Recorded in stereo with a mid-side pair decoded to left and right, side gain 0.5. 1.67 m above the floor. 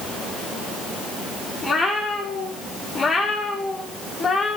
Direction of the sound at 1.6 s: 35° left.